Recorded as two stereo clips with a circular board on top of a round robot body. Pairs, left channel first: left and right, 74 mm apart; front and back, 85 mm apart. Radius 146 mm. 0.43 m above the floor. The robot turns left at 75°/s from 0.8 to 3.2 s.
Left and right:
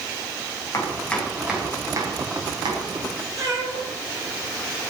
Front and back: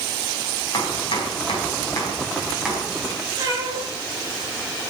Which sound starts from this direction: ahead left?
Chopping, at 0.7 s.